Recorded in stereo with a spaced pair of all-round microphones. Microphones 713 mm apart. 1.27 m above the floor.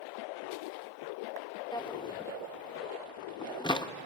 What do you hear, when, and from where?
1.7 s a drawer: 5° left (ahead or behind), 0.6 m